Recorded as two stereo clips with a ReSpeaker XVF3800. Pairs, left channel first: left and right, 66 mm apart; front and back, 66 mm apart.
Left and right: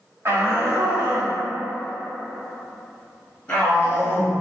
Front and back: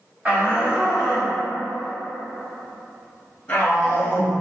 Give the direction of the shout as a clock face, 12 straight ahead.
4 o'clock.